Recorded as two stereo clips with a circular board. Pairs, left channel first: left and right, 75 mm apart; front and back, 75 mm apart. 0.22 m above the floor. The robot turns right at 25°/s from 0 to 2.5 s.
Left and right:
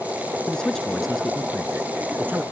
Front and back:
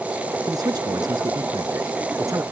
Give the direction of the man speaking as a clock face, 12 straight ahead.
7 o'clock.